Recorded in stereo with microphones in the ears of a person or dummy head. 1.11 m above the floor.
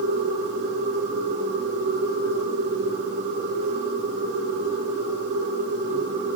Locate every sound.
0.0 s a machine running: 65° right (ahead or behind), 3.5 m